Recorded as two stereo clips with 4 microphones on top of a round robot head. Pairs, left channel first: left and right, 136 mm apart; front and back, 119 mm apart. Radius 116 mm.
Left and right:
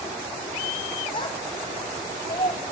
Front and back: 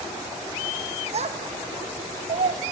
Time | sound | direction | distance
1.1 | a child speaking | 155° left | 1.9 m